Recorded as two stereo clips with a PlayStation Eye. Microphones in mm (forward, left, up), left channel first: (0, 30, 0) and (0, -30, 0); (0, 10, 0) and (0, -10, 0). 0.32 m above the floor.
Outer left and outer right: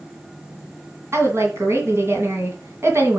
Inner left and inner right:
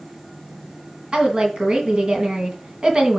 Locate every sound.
1.1 s a woman speaking: 50° right (ahead or behind), 2.5 m